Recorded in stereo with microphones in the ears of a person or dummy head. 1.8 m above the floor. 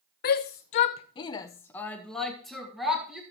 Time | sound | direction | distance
0.2 | a shout | 40° left (ahead or behind) | 0.7 m